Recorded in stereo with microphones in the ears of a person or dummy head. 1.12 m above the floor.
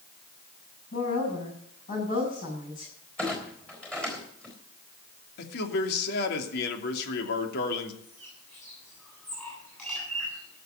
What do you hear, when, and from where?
0.9 s a woman speaking: 50° left (ahead or behind), 8 m
3.2 s a clunk: 10° left (ahead or behind), 3.5 m
5.4 s a man speaking: 55° left (ahead or behind), 2.5 m
8.0 s a bird: 20° left (ahead or behind), 7.5 m